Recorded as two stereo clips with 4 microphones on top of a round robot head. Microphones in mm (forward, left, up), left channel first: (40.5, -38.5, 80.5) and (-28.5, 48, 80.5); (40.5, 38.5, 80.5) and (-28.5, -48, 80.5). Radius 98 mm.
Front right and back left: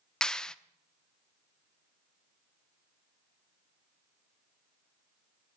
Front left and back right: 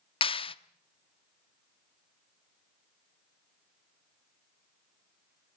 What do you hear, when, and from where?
0.2 s a clap: 30° left, 1.0 m